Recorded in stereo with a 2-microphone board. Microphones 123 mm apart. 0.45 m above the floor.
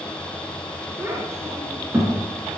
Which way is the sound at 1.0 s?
20° right (ahead or behind).